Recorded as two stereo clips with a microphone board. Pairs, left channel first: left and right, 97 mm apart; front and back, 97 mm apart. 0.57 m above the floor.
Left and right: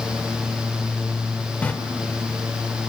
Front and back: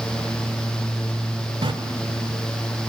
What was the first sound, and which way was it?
A running tap, 165° left.